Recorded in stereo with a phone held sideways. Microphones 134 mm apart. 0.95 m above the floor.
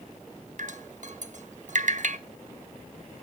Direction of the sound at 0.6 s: 65° right (ahead or behind).